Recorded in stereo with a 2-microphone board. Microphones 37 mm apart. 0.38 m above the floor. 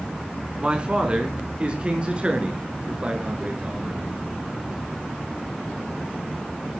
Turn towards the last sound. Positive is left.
turn(degrees=-30)  # may be behind; listen again after turning